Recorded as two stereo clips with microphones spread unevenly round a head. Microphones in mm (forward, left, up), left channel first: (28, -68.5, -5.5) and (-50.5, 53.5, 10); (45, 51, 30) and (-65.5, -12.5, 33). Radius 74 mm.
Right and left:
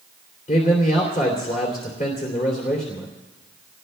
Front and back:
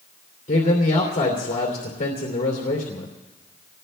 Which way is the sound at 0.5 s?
10° right.